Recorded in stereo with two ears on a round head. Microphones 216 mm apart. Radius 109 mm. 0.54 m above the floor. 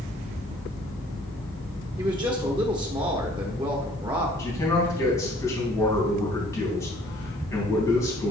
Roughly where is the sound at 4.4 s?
Centre.